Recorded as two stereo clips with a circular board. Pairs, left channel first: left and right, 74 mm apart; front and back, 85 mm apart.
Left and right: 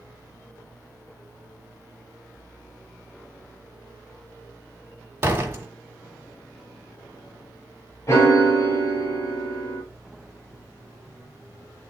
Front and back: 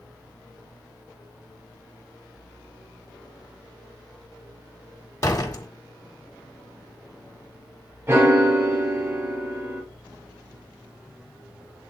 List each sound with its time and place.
5.2 s a door slam: 35° right, 1.5 m
8.1 s a piano: 125° left, 1.7 m